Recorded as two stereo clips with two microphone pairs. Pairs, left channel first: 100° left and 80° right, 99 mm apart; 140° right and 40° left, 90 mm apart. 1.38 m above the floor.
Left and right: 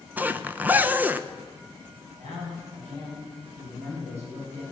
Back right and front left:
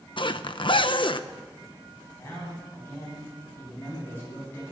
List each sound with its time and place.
0.2 s a zipper: 155° right, 0.6 m
2.2 s a man speaking: 75° right, 8.5 m